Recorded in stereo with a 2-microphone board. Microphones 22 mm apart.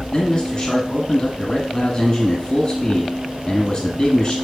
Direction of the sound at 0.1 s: 35° left (ahead or behind).